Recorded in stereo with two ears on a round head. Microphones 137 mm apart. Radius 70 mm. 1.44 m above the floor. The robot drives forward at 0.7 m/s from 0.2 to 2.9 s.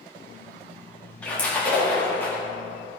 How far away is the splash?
About 3 m.